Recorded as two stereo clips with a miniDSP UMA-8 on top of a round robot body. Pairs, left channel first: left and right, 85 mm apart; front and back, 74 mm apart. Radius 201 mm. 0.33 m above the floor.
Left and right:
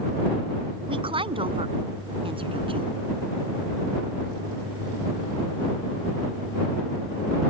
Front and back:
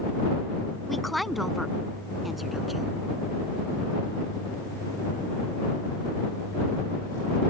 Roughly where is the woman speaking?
Right.